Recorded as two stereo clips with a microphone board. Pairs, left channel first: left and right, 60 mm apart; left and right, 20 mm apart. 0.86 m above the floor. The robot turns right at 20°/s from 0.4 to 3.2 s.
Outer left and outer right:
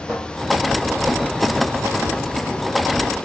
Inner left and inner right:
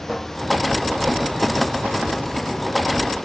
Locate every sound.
0.1 s a cupboard door: 20° right (ahead or behind), 2 m